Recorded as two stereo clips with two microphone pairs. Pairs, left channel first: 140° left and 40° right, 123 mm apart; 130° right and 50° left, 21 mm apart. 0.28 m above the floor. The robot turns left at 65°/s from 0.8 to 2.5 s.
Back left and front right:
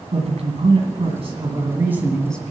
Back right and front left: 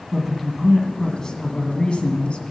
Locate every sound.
0.1 s a man speaking: 40° right, 1.9 m; by 2.5 s 150° right, 1.9 m